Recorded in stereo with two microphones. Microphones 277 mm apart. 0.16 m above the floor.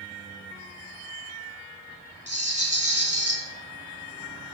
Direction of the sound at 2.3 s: 25° right (ahead or behind).